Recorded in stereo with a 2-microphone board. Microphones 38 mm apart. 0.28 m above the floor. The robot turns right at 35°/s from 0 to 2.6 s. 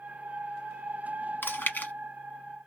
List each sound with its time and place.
1.4 s chewing: 65° left (ahead or behind), 1.0 m; by 1.9 s 50° left (ahead or behind), 1.0 m